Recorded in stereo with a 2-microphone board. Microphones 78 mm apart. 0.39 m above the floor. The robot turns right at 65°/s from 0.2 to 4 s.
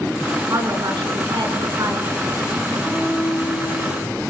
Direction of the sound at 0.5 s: 140° right.